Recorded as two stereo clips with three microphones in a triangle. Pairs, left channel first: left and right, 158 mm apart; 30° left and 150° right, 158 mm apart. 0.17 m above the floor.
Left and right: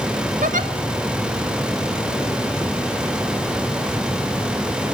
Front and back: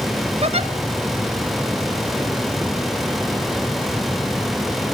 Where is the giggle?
105° right, 1.1 m.